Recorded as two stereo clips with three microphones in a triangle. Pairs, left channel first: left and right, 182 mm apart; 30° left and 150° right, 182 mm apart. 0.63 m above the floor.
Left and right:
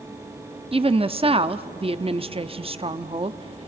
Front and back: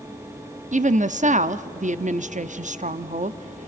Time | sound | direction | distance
0.7 | a woman speaking | 135° right | 0.7 m